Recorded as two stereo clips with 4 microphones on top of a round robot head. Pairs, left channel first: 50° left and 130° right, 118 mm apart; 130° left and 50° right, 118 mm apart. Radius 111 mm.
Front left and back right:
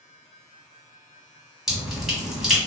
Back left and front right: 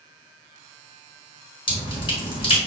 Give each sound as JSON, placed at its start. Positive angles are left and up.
{"t": 1.7, "sound": "dripping", "azimuth_deg": 145, "distance_m": 1.7}